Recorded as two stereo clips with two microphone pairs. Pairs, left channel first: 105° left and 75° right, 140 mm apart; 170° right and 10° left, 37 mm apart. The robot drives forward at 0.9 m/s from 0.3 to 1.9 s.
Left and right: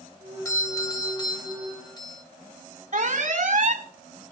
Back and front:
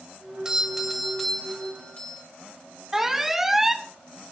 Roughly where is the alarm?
Right.